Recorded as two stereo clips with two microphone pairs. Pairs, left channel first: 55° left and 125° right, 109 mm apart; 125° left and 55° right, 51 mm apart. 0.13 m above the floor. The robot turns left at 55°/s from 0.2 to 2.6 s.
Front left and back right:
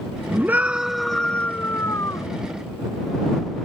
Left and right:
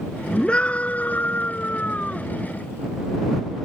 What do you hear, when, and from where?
0.3 s a scream: 175° right; by 2.3 s 75° left